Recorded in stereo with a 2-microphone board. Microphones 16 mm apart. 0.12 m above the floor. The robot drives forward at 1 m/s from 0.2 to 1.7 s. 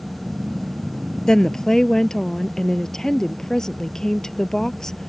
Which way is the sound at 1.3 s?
40° left (ahead or behind).